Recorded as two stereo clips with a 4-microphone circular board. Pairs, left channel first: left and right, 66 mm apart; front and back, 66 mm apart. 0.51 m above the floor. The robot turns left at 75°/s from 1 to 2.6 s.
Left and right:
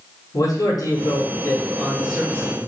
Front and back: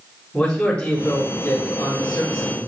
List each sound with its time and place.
0.3 s a man speaking: 70° left, 3.5 m; by 2.6 s 50° right, 3.5 m